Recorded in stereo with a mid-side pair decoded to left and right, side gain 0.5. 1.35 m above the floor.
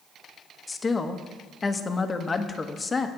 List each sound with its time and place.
0.7 s a woman speaking: 25° left, 1.2 m